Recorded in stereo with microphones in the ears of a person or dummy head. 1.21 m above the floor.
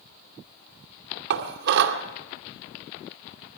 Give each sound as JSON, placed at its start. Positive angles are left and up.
{"t": 1.3, "sound": "dishes clattering", "side_deg": -70, "distance_m": 2.0}